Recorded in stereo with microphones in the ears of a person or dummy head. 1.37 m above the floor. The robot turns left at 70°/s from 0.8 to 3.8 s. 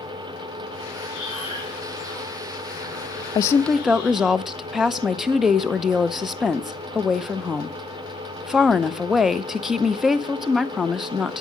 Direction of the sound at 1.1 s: 110° right.